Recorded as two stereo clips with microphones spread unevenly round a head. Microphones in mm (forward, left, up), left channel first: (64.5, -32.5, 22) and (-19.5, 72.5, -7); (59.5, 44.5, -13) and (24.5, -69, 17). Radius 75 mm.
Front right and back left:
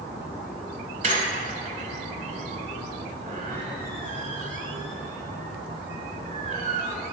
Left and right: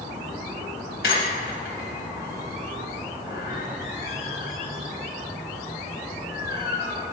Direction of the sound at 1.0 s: 100° left.